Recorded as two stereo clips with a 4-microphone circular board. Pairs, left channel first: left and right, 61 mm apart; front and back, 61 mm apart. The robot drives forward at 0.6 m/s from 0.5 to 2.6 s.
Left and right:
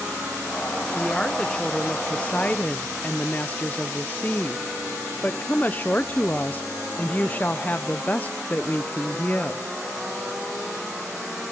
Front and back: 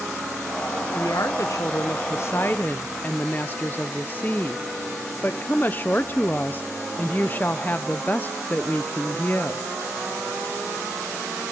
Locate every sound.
0.9 s a woman speaking: 10° left, 1.4 m; by 9.6 s 40° left, 0.6 m